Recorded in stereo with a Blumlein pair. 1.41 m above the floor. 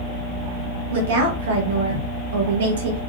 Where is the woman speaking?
60° right, 1.8 m.